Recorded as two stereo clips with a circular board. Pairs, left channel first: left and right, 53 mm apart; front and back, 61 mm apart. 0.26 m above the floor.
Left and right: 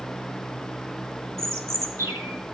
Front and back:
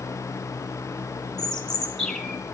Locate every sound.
1.4 s a bird: 85° right, 2.0 m